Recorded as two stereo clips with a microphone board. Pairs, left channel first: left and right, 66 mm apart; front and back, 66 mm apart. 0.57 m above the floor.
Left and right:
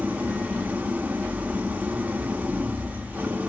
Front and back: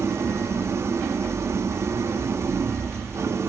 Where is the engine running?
150° right, 1.1 m.